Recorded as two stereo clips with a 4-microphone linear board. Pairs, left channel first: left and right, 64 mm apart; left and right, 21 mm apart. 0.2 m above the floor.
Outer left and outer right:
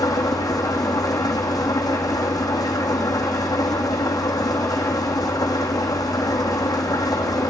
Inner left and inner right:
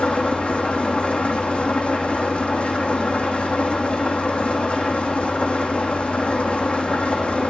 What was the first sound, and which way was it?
An engine running, 80° left.